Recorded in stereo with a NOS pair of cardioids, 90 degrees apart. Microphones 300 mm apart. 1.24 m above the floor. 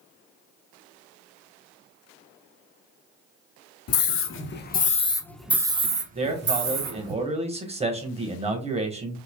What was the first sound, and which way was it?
A scream, 55° left.